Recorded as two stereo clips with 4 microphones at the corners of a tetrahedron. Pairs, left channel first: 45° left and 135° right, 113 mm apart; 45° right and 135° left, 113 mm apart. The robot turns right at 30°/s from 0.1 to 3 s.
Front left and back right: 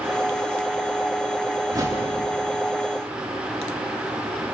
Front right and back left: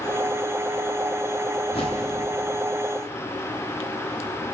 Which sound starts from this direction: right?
A whoosh, at 1.7 s.